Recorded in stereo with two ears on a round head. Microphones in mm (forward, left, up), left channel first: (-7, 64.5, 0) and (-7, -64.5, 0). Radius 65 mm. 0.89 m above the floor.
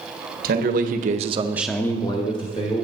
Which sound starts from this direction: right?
A man speaking, at 0.4 s.